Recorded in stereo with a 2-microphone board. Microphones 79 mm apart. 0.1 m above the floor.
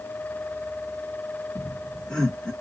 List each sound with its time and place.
1.6 s laughter: 10° left (ahead or behind), 2 m